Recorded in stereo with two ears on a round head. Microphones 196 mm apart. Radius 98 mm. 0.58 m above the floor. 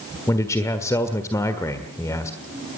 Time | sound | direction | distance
0.3 | a man speaking | 15° left (ahead or behind) | 1.5 m